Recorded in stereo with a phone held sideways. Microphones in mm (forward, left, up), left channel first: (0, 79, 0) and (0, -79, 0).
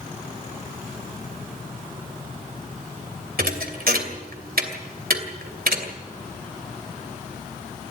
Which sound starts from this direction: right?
A thud, at 3.4 s.